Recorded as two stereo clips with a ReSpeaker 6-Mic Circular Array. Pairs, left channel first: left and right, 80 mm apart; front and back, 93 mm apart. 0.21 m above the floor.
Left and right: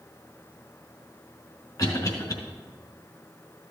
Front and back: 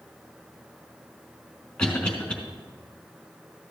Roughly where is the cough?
Left.